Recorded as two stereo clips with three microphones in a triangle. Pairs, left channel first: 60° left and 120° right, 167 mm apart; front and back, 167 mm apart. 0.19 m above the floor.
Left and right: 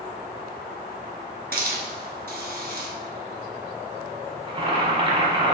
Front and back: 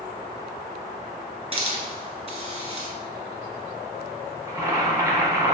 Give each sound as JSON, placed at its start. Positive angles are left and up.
{"t": 1.5, "sound": "a hiss", "azimuth_deg": -130, "distance_m": 1.1}
{"t": 4.5, "sound": "boiling", "azimuth_deg": -130, "distance_m": 0.9}